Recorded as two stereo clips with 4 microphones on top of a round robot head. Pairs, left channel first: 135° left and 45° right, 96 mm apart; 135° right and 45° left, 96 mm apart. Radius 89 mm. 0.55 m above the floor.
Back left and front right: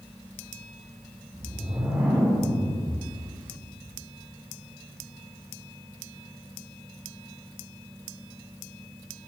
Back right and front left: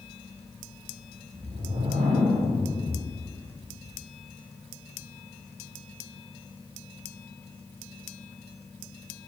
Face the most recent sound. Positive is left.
turn(degrees=30)